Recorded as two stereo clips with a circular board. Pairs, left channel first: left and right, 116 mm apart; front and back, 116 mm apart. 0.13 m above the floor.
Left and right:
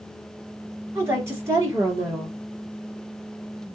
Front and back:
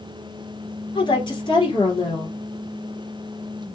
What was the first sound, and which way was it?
A woman speaking, 25° right.